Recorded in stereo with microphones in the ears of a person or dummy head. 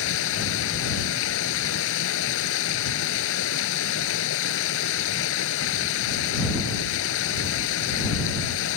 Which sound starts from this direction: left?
Running water, at 0.0 s.